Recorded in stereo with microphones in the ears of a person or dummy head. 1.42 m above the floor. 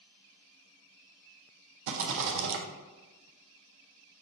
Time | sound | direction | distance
1.9 | a rattle | 65° right (ahead or behind) | 0.6 m